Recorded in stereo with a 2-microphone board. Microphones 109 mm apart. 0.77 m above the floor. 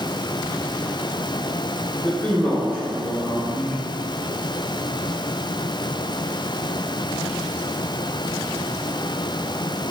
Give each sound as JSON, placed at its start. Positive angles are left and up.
{"t": 2.0, "sound": "a man speaking", "side_deg": 25, "distance_m": 3.0}